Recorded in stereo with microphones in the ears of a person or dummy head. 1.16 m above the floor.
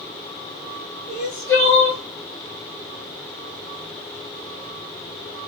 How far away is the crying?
About 1.2 m.